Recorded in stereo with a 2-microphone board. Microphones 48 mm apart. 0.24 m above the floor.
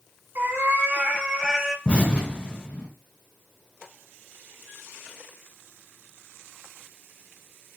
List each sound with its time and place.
0.3 s a cat meowing: 55° right (ahead or behind), 1.1 m; by 1.8 s centre (ahead or behind), 0.6 m
1.9 s an explosion: 25° left (ahead or behind), 1.3 m